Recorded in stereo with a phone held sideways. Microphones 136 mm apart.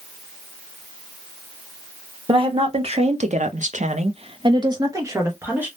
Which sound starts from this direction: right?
A woman speaking, at 2.3 s.